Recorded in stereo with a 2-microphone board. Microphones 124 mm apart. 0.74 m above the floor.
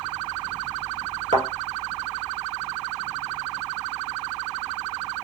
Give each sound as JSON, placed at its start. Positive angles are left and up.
{"t": 1.3, "sound": "a thud", "side_deg": -55, "distance_m": 1.4}